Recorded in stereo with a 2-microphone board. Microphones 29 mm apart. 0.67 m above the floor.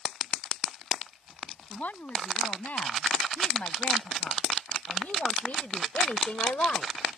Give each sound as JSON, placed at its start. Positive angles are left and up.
{"t": 1.7, "sound": "a woman speaking", "side_deg": 70}